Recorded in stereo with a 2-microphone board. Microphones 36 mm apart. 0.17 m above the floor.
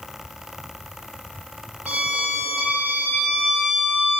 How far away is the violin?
About 2.5 m.